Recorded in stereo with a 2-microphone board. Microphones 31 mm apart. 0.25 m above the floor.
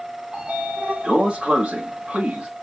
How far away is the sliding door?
About 1.4 m.